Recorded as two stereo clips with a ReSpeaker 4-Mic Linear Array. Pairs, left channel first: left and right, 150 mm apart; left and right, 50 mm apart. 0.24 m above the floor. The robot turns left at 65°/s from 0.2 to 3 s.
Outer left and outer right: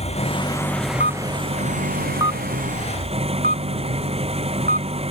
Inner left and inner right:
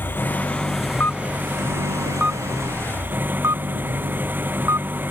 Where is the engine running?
45° left; by 5.1 s 140° right.